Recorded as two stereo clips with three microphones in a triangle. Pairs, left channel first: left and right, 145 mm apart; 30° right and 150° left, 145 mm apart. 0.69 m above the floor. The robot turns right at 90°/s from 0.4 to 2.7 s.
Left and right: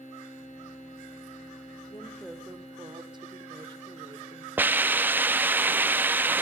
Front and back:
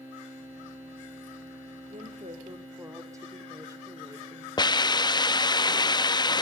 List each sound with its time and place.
1.9 s a woman speaking: 145° left, 2 m; by 4.5 s 145° right, 2 m
4.6 s a hiss: 25° right, 0.6 m